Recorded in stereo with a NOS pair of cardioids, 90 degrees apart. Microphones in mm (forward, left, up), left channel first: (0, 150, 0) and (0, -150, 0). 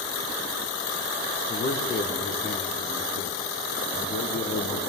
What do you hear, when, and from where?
1.5 s a man speaking: 30° left, 1.2 m